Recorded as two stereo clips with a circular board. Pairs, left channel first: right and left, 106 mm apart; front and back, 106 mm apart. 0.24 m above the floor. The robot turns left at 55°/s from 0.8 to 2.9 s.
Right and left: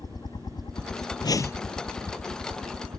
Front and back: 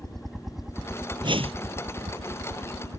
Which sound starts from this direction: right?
A helicopter, at 0.0 s.